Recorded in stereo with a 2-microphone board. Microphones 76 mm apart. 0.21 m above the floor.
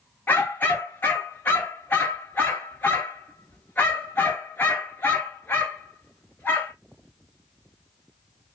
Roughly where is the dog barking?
Left.